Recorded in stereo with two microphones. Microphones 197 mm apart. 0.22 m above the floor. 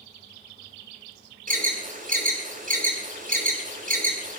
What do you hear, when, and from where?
1.5 s an alarm: 45° right (ahead or behind), 5.5 m